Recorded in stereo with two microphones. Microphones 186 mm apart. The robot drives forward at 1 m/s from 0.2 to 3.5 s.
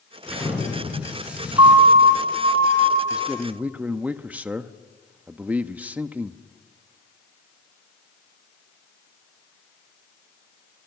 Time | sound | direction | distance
0.3 | an explosion | 5° right (ahead or behind) | 8.5 m
1.6 | a siren | 30° right (ahead or behind) | 2 m
3.1 | a man speaking | 5° right (ahead or behind) | 1.0 m